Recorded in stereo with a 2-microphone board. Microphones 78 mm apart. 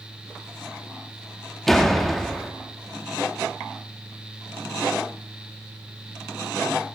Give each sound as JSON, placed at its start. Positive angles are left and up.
{"t": 1.7, "sound": "a door slam", "side_deg": 5, "distance_m": 0.8}